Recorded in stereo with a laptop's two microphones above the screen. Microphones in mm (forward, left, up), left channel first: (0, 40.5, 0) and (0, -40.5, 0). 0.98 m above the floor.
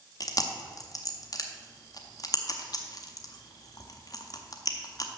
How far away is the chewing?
About 0.8 m.